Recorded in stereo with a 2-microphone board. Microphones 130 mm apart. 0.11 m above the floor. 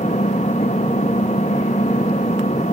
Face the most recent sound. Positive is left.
turn(degrees=60)  # may be behind; listen again after turning